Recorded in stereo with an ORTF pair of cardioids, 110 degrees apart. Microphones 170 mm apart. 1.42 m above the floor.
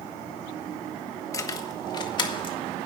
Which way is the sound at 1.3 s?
20° left.